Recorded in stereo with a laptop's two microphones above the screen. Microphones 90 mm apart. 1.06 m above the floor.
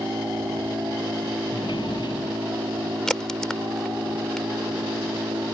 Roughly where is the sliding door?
Left.